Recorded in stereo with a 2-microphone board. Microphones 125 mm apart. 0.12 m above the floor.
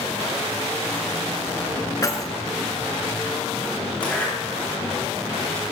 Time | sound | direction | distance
2.0 | keys jangling | 30° left (ahead or behind) | 0.9 m
4.0 | a zipper | 10° left (ahead or behind) | 3.5 m